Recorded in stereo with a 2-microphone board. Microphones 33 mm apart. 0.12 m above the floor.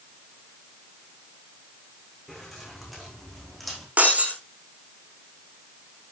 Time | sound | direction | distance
2.3 | keys jangling | 5° left (ahead or behind) | 7 m
4.0 | breaking glass | 45° right (ahead or behind) | 3 m